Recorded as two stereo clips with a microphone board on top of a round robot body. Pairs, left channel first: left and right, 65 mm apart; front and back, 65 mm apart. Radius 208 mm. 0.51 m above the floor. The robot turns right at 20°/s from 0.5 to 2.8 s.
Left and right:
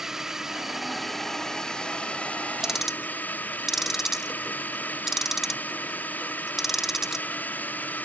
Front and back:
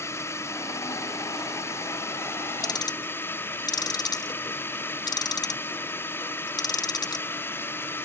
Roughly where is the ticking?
Ahead.